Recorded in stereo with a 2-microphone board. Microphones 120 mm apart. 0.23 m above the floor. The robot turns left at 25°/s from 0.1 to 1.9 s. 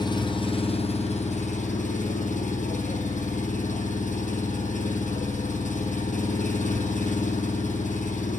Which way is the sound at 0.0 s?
145° left.